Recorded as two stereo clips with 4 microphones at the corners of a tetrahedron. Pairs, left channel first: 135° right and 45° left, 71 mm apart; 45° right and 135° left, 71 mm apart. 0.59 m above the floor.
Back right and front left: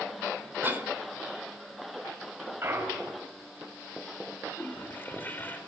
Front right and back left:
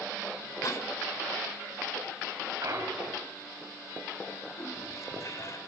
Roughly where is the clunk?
Left.